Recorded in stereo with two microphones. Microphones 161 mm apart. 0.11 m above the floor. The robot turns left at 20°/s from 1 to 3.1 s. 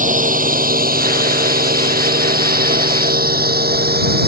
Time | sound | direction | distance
0.0 | a drone | 55° right (ahead or behind) | ?